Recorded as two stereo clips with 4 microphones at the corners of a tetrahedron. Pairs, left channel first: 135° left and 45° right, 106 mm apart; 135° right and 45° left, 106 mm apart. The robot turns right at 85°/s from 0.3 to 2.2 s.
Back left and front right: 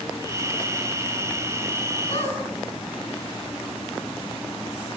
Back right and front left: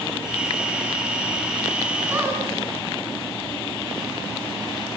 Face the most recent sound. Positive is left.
turn(degrees=120)